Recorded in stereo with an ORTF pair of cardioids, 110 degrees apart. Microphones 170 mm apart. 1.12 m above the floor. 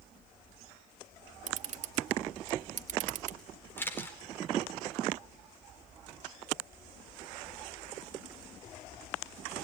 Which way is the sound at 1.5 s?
50° right.